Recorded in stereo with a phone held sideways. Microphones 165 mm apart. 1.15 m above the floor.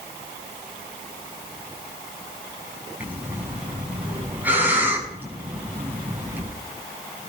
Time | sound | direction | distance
3.0 | breathing | 10° right (ahead or behind) | 7 m